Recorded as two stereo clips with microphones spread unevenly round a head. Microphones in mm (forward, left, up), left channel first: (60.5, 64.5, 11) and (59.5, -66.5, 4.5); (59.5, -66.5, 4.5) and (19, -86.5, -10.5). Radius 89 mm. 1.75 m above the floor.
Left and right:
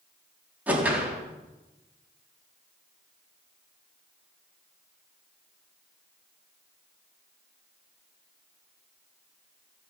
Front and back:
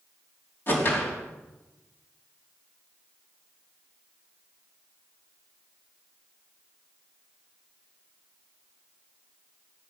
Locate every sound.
0.7 s a whoosh: 10° right, 3.5 m